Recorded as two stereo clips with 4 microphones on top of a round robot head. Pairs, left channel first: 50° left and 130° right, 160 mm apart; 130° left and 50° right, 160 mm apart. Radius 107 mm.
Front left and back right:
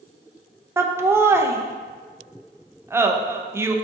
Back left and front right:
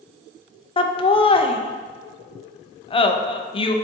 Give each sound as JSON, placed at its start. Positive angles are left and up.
{"t": 0.8, "sound": "laughter", "azimuth_deg": 165, "distance_m": 0.5}